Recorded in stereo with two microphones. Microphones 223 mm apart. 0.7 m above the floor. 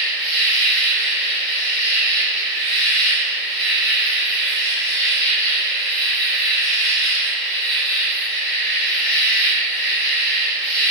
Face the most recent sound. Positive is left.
turn(degrees=55)  # may be behind; listen again after turning